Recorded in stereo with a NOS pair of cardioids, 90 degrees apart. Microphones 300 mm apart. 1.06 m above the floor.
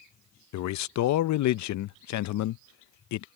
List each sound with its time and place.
0.5 s a man speaking: 70° left